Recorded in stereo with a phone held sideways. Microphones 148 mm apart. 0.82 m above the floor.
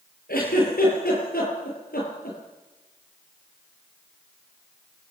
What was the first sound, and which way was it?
A giggle, 90° left.